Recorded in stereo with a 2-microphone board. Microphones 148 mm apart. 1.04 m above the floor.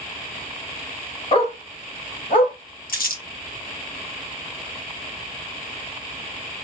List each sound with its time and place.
1.3 s a dog barking: 40° left (ahead or behind), 1.8 m; by 2.5 s 65° left (ahead or behind), 1.6 m
2.9 s crumpling: 75° left (ahead or behind), 1.2 m